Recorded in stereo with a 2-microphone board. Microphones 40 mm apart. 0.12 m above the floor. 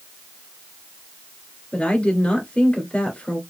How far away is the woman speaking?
About 1.9 m.